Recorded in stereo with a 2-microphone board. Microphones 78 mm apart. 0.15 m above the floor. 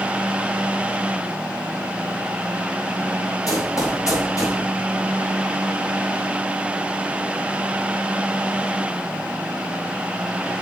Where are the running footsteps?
45° left (ahead or behind), 3 m.